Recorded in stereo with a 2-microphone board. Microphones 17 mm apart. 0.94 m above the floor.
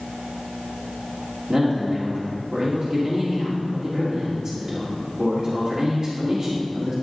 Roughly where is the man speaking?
Right.